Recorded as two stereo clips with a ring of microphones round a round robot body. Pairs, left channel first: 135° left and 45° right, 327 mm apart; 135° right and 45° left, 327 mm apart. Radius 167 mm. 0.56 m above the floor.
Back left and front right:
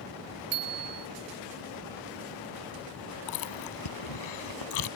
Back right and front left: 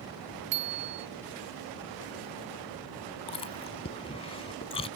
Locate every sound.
0.5 s a bicycle bell: straight ahead
3.3 s chewing: 150° left